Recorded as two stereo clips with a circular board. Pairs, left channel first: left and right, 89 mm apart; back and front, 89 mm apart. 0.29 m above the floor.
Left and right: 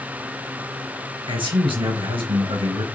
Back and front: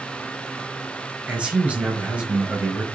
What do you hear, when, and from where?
1.3 s a man speaking: 75° right, 4.5 m